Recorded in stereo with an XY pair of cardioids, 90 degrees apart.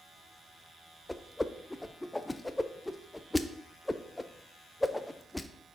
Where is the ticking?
No ticking in this recording.